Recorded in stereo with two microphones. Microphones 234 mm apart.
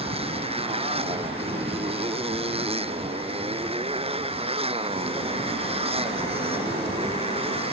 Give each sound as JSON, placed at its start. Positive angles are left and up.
{"t": 0.0, "sound": "a motorcycle", "side_deg": -25}